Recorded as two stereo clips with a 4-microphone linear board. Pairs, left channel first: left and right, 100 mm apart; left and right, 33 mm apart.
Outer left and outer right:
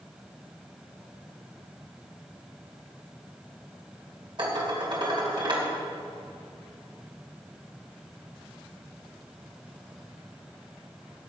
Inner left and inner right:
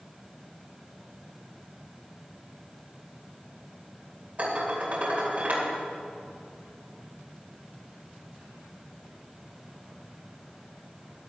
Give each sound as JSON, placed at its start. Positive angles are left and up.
{"t": 4.4, "sound": "dishes clattering", "side_deg": -50, "distance_m": 2.5}